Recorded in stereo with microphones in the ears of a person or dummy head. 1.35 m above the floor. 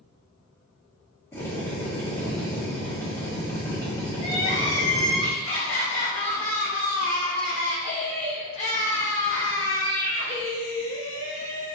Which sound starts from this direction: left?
Crying, at 4.2 s.